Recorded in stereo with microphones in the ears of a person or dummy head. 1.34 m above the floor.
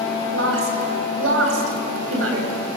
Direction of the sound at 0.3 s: 90° right.